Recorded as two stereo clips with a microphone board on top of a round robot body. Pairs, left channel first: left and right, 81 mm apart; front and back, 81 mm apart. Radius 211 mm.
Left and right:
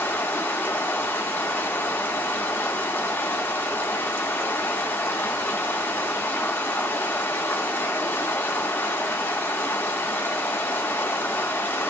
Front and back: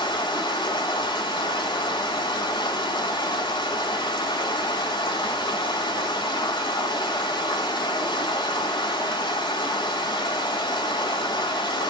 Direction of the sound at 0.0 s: 25° left.